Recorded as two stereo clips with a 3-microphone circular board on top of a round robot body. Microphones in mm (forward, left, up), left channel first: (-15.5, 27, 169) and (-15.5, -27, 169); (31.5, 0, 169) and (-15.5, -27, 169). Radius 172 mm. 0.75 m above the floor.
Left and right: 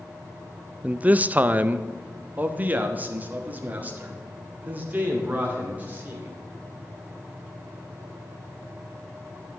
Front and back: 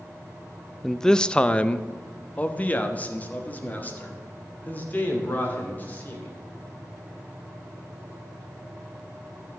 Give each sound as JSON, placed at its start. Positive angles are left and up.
{"t": 0.8, "sound": "a man speaking", "azimuth_deg": -55, "distance_m": 0.5}